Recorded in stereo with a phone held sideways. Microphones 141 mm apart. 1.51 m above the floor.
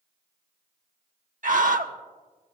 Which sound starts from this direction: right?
A scream, at 1.4 s.